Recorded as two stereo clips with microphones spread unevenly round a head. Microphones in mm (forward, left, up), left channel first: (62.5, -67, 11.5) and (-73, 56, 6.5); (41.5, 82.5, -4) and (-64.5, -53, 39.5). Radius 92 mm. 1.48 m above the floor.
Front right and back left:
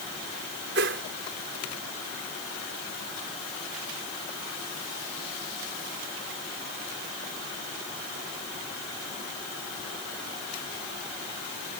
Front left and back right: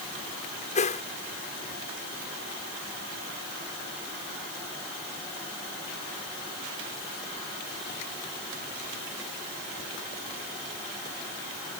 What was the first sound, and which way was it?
A whoosh, 105° left.